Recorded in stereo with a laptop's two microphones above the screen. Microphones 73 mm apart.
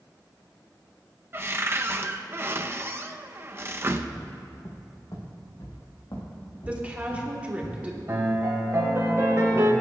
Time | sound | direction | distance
1.3 | a cupboard door | 30° right (ahead or behind) | 0.6 m
4.2 | footsteps | 40° left (ahead or behind) | 2 m
6.7 | a woman speaking | 20° right (ahead or behind) | 2.5 m
8.1 | a piano | 45° right (ahead or behind) | 1.7 m